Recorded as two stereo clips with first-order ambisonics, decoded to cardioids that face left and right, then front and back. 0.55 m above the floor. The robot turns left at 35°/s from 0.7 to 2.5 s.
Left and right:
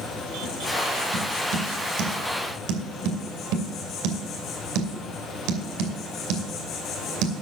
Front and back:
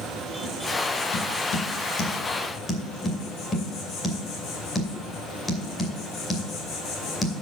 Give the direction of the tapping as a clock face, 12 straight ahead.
1 o'clock.